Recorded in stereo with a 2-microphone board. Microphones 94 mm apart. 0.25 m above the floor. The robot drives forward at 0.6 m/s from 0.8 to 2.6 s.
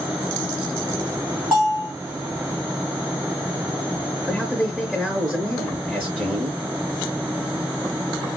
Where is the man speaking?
10° right (ahead or behind), 3.5 m.